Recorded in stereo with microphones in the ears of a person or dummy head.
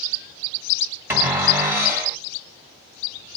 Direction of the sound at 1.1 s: 15° right (ahead or behind).